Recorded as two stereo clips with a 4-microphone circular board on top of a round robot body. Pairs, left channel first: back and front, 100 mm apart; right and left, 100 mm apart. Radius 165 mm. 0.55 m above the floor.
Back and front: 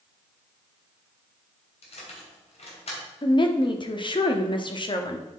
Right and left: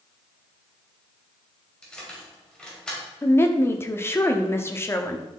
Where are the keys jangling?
170° right, 2.5 m.